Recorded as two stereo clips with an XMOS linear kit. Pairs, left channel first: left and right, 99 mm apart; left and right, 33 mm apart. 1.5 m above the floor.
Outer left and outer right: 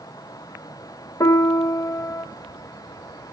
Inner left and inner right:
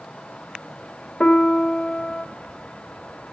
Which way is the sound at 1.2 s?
35° left (ahead or behind).